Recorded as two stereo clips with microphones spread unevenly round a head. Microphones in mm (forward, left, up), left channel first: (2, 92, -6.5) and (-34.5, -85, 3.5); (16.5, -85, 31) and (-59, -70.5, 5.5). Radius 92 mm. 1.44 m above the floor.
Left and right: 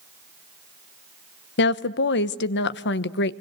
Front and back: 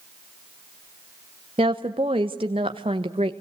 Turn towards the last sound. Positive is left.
turn(degrees=105)